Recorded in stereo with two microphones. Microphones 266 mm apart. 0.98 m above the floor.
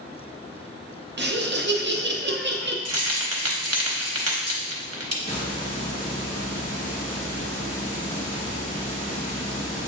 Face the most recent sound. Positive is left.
turn(degrees=30)  # may be behind; listen again after turning